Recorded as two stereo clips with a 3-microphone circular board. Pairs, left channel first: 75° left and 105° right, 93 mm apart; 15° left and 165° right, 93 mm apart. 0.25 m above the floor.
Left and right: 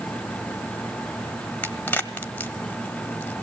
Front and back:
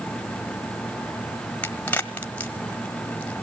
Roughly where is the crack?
Ahead left.